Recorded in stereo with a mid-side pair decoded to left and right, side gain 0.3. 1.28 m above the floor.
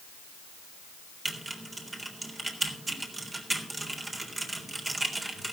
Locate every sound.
1.2 s typing on a keyboard: 35° right, 3.5 m